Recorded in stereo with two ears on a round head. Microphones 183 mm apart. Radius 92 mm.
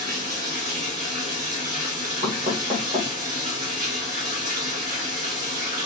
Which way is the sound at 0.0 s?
40° right (ahead or behind).